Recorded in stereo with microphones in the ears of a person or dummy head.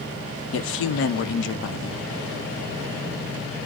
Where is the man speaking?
75° left (ahead or behind), 0.6 m.